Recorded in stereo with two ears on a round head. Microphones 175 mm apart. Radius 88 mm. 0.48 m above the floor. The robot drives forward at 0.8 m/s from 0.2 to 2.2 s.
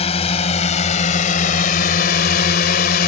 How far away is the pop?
No pop in this recording.